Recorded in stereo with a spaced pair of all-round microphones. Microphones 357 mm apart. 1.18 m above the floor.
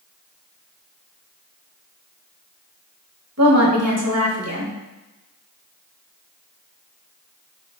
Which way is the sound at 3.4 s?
45° right (ahead or behind).